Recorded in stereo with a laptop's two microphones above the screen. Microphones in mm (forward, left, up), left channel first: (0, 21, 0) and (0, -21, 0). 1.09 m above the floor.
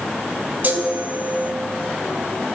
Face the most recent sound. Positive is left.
turn(degrees=-50)  # may be behind; listen again after turning